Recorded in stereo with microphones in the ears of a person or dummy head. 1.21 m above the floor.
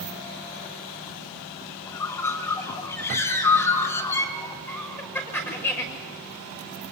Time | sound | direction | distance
1.9 | a bird | 15° left (ahead or behind) | 2 m
4.7 | laughter | 10° left (ahead or behind) | 5.5 m